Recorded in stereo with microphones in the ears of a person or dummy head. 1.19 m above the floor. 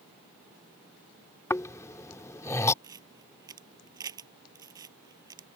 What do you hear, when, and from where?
1.5 s snoring: 15° left (ahead or behind)
2.8 s a camera shutter: 20° right (ahead or behind)